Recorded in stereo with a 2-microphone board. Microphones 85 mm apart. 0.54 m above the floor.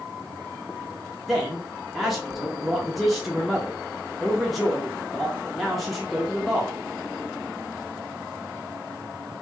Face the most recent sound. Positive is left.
turn(degrees=0)  # may be behind; listen again after turning